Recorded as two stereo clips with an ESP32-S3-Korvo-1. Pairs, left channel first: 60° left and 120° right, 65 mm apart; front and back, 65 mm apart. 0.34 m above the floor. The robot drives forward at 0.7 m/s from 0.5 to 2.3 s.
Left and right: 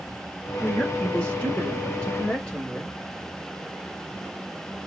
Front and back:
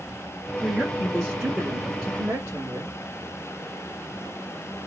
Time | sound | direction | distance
0.6 | a woman speaking | 65° left | 1.6 m